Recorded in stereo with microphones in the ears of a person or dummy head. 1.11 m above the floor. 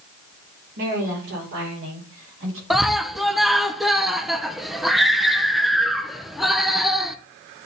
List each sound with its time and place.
0.8 s a woman speaking: 50° right (ahead or behind), 3.5 m; by 2.6 s 65° right (ahead or behind), 5.5 m
2.7 s a scream: 5° right (ahead or behind), 0.6 m